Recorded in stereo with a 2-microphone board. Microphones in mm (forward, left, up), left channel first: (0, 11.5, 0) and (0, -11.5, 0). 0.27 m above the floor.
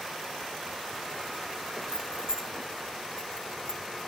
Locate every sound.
1.9 s keys jangling: 25° left (ahead or behind), 1.1 m